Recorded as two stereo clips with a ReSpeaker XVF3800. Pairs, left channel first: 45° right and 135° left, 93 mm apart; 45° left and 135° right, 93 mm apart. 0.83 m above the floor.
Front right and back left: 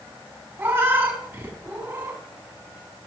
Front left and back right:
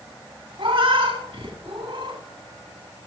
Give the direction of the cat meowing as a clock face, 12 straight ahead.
5 o'clock.